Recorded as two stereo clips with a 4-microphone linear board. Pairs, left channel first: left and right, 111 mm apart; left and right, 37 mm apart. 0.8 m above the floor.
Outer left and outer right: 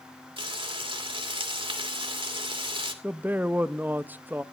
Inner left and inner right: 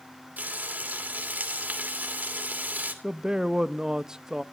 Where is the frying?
55° right (ahead or behind), 2.5 m.